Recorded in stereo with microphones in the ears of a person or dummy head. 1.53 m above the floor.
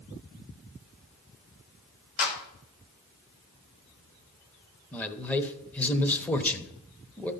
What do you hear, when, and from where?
2.2 s a clap: 80° left, 2.5 m
4.9 s a man speaking: 10° left (ahead or behind), 0.8 m